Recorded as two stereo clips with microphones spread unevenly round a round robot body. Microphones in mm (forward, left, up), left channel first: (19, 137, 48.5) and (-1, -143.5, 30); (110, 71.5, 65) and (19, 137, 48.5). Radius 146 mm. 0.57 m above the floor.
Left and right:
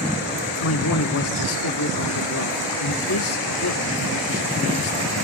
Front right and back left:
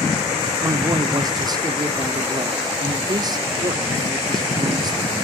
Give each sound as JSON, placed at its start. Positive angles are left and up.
{"t": 0.6, "sound": "a man speaking", "azimuth_deg": 110, "distance_m": 1.4}